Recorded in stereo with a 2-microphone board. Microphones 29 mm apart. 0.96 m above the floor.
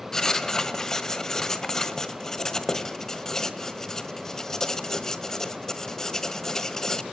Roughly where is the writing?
Centre.